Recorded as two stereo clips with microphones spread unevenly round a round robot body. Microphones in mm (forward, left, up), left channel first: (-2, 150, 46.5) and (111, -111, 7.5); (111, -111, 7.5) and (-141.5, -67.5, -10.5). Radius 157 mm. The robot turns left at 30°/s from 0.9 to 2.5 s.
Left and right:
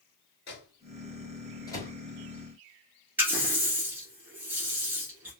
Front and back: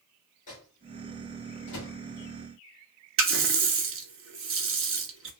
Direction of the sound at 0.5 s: 55° left.